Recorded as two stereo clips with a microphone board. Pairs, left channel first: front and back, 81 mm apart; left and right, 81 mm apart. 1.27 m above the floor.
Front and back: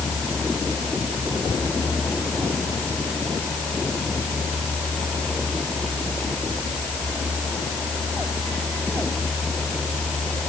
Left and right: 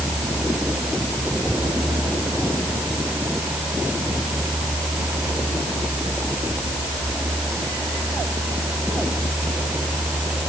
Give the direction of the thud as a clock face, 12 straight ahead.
No thud in this recording.